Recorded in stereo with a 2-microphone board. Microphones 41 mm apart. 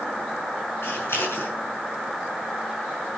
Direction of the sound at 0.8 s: 85° left.